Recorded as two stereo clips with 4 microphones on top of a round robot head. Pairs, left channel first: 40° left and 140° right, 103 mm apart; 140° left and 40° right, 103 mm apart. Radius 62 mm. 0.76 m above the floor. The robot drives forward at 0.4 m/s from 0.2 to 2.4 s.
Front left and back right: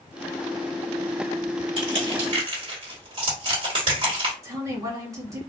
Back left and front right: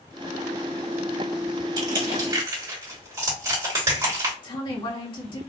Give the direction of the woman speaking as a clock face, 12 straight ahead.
6 o'clock.